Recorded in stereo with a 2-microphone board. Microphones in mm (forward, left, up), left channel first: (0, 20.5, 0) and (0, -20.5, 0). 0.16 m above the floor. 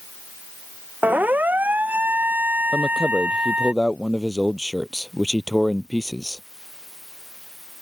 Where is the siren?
50° right (ahead or behind); by 3.7 s 40° right (ahead or behind).